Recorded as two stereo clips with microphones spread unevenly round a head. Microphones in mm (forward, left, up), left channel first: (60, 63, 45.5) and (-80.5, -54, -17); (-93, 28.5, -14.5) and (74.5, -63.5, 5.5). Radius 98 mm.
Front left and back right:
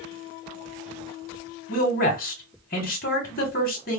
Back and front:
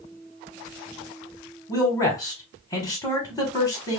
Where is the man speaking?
70° left, 1.3 m.